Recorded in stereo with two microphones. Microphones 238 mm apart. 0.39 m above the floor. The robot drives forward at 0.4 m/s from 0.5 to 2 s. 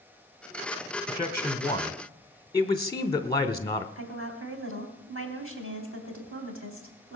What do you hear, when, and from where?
1.1 s a man speaking: 15° left (ahead or behind), 1.0 m
4.0 s a woman speaking: 60° right (ahead or behind), 3 m